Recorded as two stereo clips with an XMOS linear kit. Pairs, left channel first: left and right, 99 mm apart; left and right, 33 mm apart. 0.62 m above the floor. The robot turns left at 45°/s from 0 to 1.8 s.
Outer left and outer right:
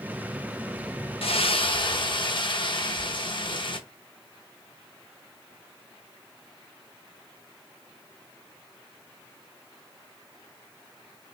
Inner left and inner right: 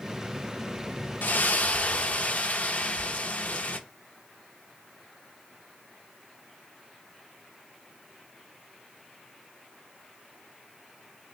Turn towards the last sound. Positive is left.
turn(degrees=55)  # may be behind; listen again after turning